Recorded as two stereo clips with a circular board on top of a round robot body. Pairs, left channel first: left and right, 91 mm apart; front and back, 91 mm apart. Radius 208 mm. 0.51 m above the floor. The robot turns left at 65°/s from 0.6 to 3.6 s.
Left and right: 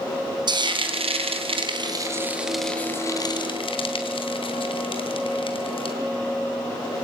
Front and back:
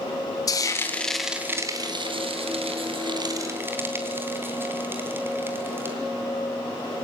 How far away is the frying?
About 3.5 m.